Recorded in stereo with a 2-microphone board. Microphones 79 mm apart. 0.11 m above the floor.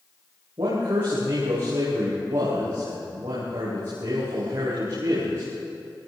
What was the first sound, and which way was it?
A man speaking, 80° right.